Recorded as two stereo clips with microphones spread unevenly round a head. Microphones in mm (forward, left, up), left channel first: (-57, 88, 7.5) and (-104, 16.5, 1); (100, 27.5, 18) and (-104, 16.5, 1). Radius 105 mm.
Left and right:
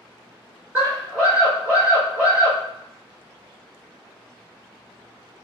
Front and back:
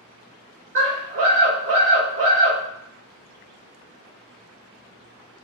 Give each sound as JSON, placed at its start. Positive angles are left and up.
{"t": 0.8, "sound": "a scream", "azimuth_deg": 165, "distance_m": 1.9}